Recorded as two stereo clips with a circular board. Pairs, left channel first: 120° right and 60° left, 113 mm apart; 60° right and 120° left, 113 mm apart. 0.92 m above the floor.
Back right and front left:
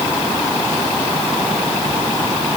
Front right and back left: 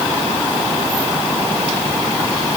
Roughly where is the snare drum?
No snare drum in this recording.